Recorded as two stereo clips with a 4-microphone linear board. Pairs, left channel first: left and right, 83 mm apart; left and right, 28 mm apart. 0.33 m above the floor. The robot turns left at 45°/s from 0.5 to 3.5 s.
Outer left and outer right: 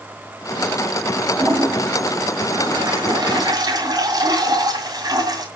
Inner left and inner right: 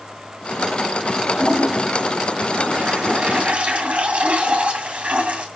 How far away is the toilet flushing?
About 2 m.